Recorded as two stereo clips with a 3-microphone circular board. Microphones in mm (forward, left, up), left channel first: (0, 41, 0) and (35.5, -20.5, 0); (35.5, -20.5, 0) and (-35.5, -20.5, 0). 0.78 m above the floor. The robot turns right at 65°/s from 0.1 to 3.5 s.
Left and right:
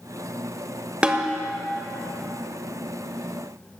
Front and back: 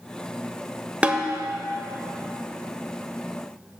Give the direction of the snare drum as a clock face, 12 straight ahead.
4 o'clock.